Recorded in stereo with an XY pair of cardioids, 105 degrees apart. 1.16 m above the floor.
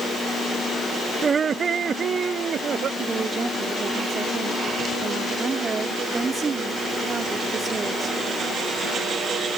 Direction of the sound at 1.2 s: 35° right.